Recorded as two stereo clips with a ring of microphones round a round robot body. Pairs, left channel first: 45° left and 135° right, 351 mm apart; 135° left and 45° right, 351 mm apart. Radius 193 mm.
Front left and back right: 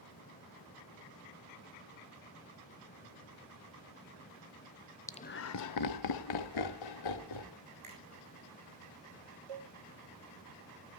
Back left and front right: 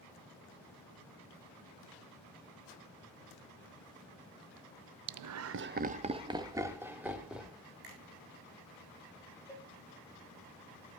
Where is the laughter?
35° right, 0.6 m; by 7.6 s 45° left, 3 m.